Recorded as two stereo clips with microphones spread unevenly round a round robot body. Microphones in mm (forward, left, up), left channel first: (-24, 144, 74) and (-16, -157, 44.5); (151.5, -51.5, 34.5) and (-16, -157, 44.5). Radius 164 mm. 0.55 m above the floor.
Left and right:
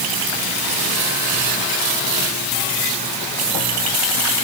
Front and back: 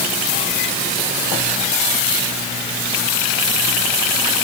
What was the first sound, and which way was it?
Only background noise.